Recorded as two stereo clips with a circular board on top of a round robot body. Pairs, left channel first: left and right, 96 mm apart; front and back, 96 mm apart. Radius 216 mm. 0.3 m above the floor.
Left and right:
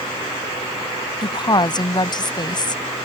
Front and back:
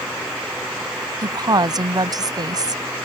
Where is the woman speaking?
130° left.